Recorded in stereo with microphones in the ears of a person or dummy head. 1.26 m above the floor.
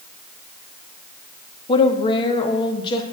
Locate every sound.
1.7 s a woman speaking: 25° left (ahead or behind), 0.8 m; by 3.0 s 30° left (ahead or behind), 1.4 m